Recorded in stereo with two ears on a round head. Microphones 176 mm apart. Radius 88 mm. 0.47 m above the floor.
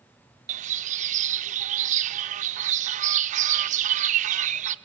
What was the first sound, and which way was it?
A bird, 40° right (ahead or behind).